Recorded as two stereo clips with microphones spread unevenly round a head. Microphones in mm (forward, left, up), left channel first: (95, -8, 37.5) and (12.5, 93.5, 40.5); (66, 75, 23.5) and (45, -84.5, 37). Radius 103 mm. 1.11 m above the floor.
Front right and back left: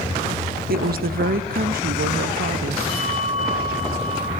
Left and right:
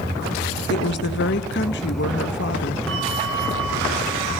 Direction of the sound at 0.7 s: 115° left.